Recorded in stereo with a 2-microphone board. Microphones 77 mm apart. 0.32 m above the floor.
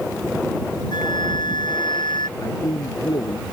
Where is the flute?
80° left.